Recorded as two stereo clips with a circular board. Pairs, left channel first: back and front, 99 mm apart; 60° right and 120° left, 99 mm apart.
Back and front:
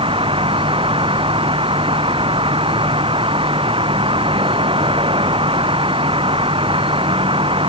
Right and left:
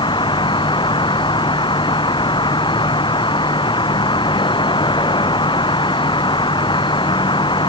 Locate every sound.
0.0 s an insect: 25° right